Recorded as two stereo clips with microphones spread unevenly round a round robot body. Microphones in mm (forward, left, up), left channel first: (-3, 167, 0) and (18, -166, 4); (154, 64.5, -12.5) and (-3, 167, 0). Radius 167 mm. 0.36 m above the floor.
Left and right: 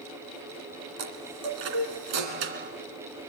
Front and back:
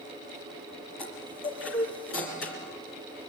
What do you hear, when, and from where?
1.0 s a chime: 85° right, 2 m